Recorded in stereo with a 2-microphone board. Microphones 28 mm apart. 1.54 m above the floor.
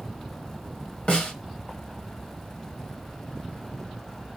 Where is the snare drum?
40° left (ahead or behind), 1.3 m.